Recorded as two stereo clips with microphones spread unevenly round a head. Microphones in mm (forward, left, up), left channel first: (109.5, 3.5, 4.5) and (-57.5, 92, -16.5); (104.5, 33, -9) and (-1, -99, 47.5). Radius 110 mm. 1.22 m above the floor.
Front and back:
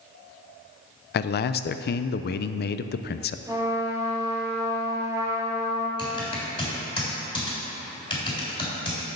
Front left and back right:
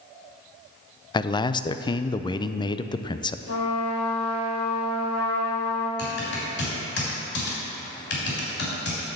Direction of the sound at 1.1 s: 5° left.